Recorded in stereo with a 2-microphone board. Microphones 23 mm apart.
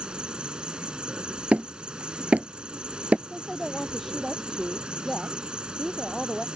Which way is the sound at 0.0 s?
45° right (ahead or behind).